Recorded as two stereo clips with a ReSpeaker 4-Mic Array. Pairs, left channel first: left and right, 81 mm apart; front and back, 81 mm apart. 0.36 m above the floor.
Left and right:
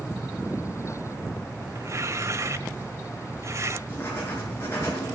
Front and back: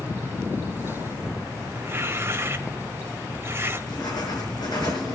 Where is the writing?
30° left, 5.5 m.